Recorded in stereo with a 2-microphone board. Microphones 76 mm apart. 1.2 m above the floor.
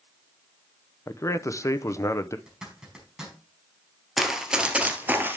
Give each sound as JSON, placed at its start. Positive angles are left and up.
{"t": 1.1, "sound": "a man speaking", "side_deg": 40, "distance_m": 0.7}
{"t": 2.5, "sound": "a zipper", "side_deg": -5, "distance_m": 4.5}
{"t": 4.2, "sound": "running footsteps", "side_deg": 0, "distance_m": 1.6}